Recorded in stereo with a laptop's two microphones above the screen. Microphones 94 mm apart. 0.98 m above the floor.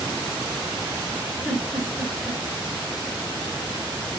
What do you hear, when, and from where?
1.4 s a giggle: 5° left (ahead or behind), 1.2 m